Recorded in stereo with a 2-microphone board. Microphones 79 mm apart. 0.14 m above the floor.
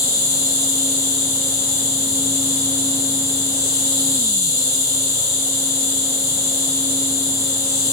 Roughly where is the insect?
Left.